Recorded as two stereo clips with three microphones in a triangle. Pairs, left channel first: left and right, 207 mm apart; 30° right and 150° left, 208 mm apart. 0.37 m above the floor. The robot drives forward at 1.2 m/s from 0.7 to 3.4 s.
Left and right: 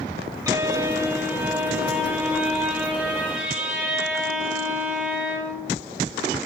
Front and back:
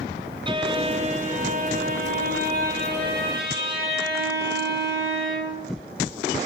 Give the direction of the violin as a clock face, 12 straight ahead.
5 o'clock.